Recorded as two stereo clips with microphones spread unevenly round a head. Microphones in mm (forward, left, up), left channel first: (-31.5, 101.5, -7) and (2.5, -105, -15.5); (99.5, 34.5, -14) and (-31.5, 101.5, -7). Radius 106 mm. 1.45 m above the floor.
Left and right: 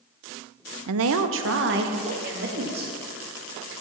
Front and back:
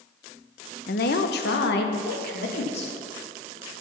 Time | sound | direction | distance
0.9 | a woman speaking | 70° right | 0.6 m